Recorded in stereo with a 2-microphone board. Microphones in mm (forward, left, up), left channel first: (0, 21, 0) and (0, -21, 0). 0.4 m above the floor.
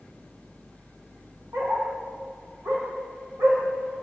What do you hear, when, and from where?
1.5 s a dog barking: 85° right, 7 m; by 4.0 s 75° right (ahead or behind), 8 m